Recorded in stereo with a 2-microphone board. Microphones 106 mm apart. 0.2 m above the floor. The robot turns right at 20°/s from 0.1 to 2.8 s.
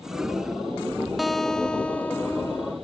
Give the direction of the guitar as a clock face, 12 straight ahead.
12 o'clock.